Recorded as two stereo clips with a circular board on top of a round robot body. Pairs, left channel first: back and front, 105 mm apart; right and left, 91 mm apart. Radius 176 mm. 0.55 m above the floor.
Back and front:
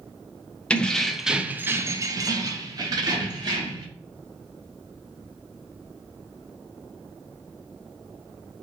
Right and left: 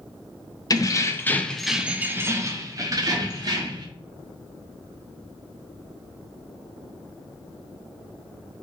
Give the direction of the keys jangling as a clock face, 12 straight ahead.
4 o'clock.